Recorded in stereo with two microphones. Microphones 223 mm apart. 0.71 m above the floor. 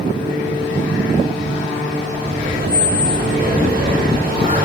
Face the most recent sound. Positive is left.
turn(degrees=-45)  # may be behind; listen again after turning